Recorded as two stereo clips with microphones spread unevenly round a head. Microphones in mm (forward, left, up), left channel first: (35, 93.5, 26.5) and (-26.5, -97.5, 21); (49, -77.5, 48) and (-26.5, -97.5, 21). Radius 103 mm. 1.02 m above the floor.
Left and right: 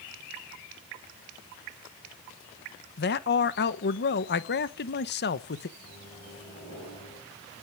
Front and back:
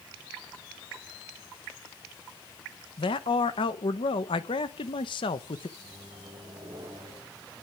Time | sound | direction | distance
3.0 | a man speaking | 45° left | 0.9 m
5.8 | a microwave | 135° left | 4.5 m